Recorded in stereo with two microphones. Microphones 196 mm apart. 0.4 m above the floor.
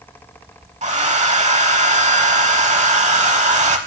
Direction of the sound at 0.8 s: 35° right (ahead or behind).